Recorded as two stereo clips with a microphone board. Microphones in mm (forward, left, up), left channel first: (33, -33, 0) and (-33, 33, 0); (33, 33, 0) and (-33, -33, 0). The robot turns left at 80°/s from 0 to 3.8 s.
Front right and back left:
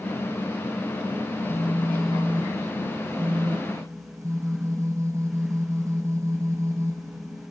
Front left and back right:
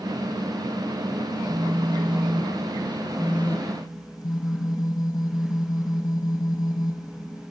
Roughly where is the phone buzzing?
Right.